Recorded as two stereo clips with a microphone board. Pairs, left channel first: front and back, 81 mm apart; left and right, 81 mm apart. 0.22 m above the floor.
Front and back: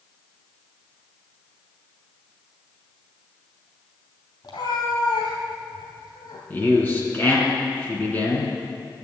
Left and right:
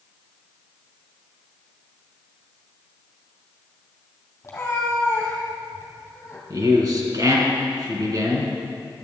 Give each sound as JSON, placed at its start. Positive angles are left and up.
{"t": 4.4, "sound": "a cat meowing", "azimuth_deg": 30, "distance_m": 2.5}
{"t": 6.5, "sound": "a man speaking", "azimuth_deg": -65, "distance_m": 3.0}